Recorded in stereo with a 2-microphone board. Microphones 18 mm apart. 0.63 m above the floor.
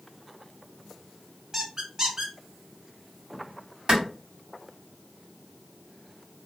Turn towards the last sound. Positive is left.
turn(degrees=-50)  # may be behind; listen again after turning